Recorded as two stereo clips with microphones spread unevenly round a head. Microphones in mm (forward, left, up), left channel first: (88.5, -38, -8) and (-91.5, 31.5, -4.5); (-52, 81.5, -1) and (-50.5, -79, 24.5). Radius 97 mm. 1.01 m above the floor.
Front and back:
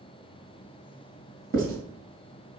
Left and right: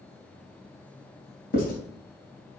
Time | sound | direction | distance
1.5 | writing | 115° left | 2.5 m